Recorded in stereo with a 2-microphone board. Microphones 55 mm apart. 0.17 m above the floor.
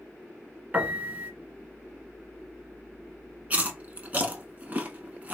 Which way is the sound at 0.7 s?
30° right (ahead or behind).